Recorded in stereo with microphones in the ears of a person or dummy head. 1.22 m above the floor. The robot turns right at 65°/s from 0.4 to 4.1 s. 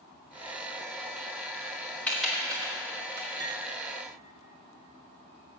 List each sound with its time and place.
2.1 s typing on a keyboard: 10° left (ahead or behind), 1.6 m; by 3.3 s 70° right (ahead or behind), 1.6 m
3.4 s cutlery clinking: 25° right (ahead or behind), 1.5 m; by 3.6 s 10° right (ahead or behind), 1.5 m